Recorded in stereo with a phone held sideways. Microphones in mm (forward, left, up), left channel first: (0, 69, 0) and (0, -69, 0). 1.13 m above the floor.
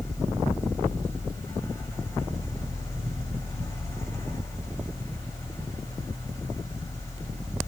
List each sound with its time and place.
0.0 s a fan: 25° left (ahead or behind), 7 m